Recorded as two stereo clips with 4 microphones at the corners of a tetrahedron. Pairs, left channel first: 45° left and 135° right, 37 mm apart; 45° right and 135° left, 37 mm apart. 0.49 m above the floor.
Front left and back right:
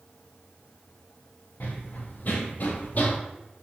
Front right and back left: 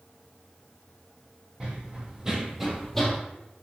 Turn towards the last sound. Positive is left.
turn(degrees=20)